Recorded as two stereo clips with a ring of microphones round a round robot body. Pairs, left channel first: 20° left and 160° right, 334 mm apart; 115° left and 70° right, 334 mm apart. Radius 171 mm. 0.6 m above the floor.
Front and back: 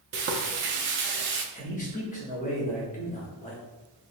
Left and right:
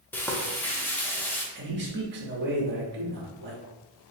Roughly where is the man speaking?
Ahead right.